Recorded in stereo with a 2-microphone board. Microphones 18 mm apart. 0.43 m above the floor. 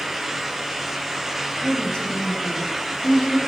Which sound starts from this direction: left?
A woman speaking, at 1.6 s.